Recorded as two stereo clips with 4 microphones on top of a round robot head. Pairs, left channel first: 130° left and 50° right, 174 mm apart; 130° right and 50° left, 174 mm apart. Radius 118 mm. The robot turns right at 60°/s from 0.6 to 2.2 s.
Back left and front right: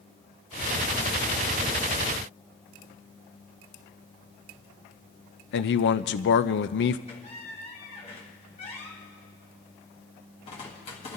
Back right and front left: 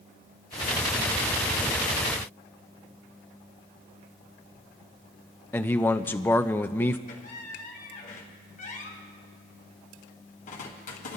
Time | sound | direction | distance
5.5 | a man speaking | 150° left | 0.5 m
7.1 | a squeak | 175° right | 1.9 m